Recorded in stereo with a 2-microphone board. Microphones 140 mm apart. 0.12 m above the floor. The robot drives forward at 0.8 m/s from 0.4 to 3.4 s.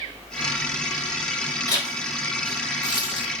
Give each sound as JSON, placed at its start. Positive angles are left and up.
{"t": 1.7, "sound": "a zipper", "side_deg": 30, "distance_m": 5.0}